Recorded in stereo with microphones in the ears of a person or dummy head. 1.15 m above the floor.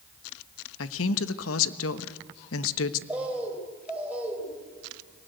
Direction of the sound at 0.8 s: 75° left (ahead or behind).